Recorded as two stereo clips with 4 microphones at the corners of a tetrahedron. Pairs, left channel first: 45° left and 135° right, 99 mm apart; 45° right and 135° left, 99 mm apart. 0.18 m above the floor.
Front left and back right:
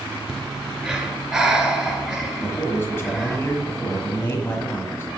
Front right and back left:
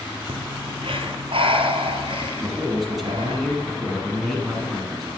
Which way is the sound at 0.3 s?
140° left.